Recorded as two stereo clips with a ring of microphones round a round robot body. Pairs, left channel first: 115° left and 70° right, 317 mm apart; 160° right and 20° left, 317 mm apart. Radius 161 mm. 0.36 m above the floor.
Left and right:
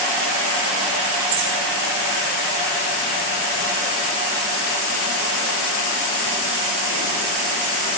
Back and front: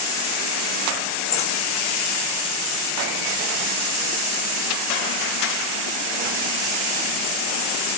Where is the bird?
85° right, 4 m.